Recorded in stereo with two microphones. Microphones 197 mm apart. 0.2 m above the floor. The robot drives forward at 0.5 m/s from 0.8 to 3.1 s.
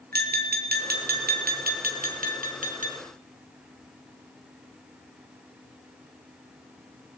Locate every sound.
0.1 s tapping: 50° right (ahead or behind), 2.5 m; by 2.9 s 45° right (ahead or behind), 2.5 m